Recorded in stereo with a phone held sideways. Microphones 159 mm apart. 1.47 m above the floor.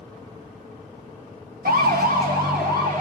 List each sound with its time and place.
1.6 s a siren: 85° right, 2 m